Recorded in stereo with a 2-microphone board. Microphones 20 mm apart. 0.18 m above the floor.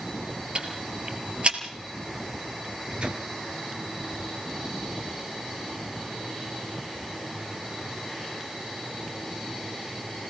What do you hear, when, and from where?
0.6 s ticking: 55° right (ahead or behind), 3 m
2.6 s a microwave: 60° right (ahead or behind), 3 m